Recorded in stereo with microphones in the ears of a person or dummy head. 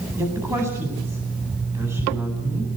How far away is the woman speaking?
About 9 m.